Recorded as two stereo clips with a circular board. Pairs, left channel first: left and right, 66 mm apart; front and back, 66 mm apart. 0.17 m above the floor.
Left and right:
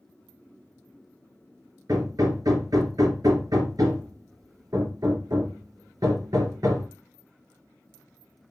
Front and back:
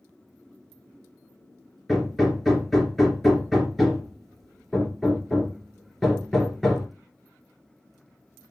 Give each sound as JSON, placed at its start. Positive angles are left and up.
{"t": 1.9, "sound": "hammering", "azimuth_deg": -85, "distance_m": 2.0}